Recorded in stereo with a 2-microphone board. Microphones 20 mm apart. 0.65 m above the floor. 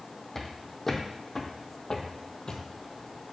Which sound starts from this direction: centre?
Footsteps, at 0.3 s.